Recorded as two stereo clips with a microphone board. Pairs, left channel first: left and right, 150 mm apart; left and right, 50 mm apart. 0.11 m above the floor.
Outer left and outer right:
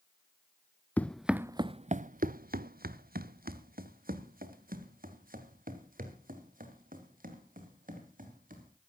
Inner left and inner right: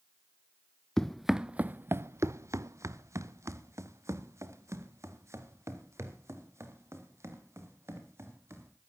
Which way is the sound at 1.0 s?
10° left (ahead or behind).